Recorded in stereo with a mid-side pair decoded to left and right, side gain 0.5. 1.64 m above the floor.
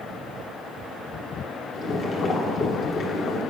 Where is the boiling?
55° left, 1.6 m.